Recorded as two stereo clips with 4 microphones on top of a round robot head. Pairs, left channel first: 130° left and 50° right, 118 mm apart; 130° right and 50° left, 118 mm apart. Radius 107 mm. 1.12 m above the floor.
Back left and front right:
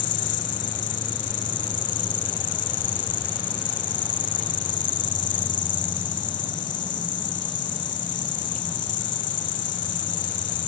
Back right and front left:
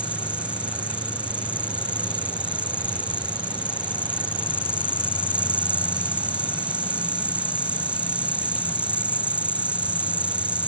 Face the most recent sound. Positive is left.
turn(degrees=130)